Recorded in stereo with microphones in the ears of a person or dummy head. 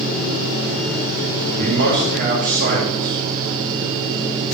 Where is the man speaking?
60° right (ahead or behind), 3.5 m.